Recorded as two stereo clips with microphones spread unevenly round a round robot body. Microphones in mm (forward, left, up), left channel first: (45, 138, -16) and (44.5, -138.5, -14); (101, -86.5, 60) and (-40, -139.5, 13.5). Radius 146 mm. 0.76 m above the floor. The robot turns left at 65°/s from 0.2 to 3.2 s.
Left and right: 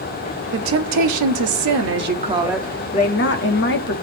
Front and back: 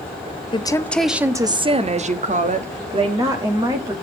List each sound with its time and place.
0.5 s a woman speaking: 45° right, 1.2 m; by 4.0 s 140° left, 1.2 m